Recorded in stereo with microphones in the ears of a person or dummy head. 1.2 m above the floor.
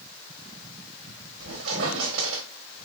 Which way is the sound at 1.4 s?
80° right.